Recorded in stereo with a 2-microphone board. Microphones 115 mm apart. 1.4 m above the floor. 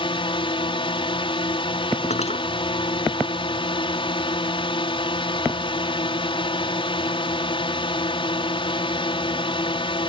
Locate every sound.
0.0 s a drone: 45° left (ahead or behind)
2.1 s cutlery clinking: 65° left (ahead or behind)